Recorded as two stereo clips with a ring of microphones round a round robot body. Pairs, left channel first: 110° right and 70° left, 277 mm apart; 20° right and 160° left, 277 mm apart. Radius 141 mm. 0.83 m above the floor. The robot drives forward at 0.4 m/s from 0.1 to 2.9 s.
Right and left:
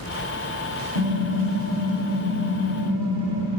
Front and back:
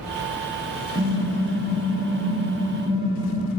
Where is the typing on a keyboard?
55° left, 1.7 m; by 3.5 s 85° left, 1.4 m.